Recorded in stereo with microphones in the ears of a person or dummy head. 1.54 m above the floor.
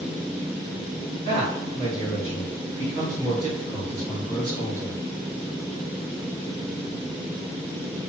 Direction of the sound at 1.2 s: 45° left (ahead or behind).